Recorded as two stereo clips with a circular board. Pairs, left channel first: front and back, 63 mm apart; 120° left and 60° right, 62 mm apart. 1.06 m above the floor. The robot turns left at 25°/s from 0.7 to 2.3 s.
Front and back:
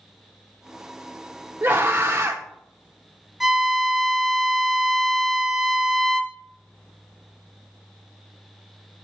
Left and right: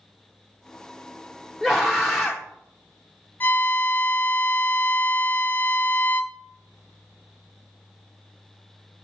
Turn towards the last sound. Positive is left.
turn(degrees=90)